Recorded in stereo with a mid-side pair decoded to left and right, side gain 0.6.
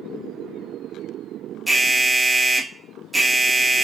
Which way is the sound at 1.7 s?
10° right.